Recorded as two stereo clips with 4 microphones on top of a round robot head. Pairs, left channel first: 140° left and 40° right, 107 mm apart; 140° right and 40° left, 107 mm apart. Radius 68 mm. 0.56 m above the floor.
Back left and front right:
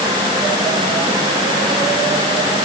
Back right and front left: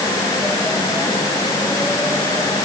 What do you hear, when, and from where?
Only background noise.